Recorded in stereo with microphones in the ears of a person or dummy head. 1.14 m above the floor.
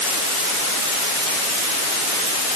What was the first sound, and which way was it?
Only background noise.